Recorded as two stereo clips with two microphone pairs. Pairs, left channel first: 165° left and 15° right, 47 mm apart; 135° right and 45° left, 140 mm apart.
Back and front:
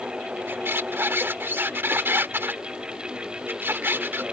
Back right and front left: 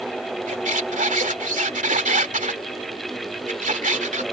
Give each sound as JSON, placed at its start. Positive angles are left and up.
{"t": 0.5, "sound": "a squeak", "azimuth_deg": 25}